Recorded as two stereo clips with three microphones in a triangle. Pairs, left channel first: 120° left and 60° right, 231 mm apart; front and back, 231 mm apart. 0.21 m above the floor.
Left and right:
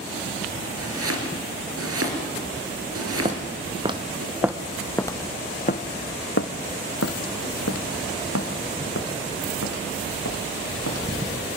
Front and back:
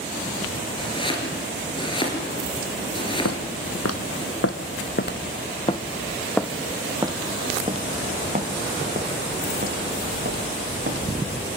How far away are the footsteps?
About 1.6 m.